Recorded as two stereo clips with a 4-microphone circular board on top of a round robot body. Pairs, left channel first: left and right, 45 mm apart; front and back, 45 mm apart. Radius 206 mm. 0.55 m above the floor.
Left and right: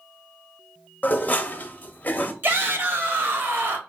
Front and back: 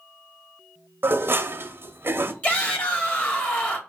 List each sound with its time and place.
1.0 s dishes clattering: 145° left, 0.6 m
2.4 s a shout: 55° right, 1.9 m